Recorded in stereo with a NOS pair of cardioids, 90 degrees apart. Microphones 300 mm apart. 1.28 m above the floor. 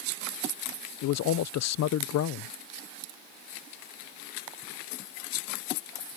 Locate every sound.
1.0 s a man speaking: 65° left